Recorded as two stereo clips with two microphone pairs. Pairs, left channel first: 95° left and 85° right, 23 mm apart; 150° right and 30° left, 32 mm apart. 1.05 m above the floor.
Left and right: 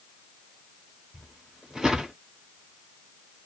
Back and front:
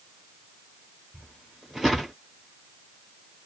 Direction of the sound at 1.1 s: 45° right.